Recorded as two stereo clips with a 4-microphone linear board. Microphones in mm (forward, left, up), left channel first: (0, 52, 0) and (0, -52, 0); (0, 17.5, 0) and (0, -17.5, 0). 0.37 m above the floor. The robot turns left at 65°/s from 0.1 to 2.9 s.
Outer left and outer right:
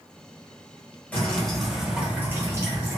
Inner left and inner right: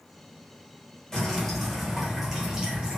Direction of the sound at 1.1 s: 15° left (ahead or behind).